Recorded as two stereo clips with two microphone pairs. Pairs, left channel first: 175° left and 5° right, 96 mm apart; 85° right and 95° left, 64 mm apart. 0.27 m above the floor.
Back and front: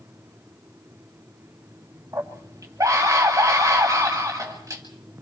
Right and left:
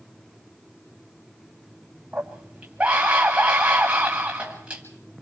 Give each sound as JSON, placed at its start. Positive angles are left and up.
{"t": 2.1, "sound": "a scream", "azimuth_deg": 30, "distance_m": 1.3}